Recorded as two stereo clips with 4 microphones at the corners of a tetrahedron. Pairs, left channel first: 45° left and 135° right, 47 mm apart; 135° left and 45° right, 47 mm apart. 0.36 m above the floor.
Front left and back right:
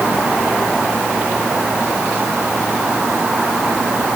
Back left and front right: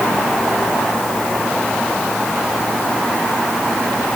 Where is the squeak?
No squeak in this recording.